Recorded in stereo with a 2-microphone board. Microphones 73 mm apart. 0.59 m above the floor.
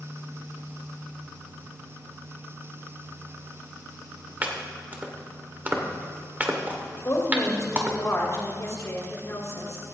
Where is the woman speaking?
45° left (ahead or behind), 2.5 m.